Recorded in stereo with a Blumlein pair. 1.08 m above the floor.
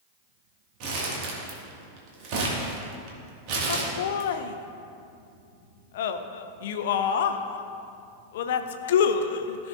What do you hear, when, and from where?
0.8 s crumpling: 45° right, 1.7 m
3.7 s laughter: 55° left, 0.6 m